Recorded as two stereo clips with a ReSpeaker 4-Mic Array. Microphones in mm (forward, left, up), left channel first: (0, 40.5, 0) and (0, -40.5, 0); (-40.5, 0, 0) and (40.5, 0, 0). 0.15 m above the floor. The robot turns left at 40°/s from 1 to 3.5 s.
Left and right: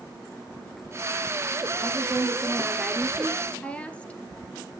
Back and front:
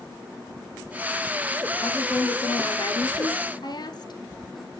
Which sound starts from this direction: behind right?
A woman speaking, at 1.8 s.